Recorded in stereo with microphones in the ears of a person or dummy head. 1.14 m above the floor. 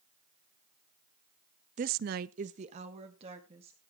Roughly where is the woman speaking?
Right.